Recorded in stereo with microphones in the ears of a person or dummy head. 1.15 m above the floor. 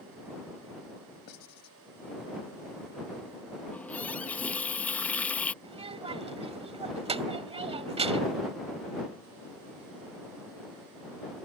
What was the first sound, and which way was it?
Writing, 60° left (ahead or behind).